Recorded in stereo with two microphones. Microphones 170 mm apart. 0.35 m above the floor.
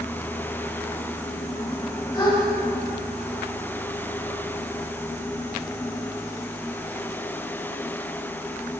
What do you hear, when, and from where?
2.1 s a gasp: 25° left (ahead or behind), 2 m